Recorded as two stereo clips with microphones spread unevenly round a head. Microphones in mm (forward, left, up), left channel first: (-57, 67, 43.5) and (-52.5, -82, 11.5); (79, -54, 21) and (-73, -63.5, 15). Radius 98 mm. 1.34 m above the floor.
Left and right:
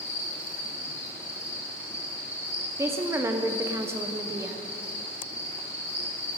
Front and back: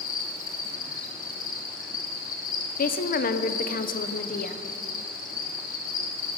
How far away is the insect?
About 1.2 m.